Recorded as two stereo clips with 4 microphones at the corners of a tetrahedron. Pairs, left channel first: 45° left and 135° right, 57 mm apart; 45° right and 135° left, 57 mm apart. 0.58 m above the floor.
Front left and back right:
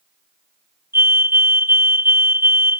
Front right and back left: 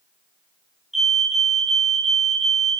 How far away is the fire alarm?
About 2.5 m.